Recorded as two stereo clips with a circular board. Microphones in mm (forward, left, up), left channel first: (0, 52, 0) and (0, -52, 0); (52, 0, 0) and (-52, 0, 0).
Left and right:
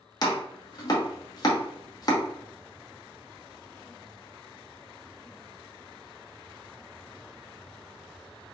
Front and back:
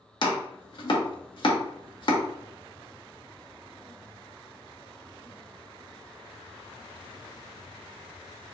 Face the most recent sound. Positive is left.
turn(degrees=40)